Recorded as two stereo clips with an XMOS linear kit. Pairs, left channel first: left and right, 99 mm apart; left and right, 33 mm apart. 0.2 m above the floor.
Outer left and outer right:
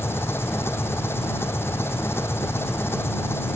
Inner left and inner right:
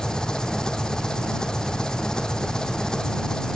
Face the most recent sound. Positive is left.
turn(degrees=25)  # may be behind; listen again after turning